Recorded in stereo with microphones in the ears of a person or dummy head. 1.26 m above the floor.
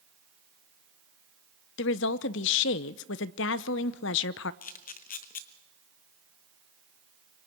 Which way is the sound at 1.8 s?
65° left (ahead or behind).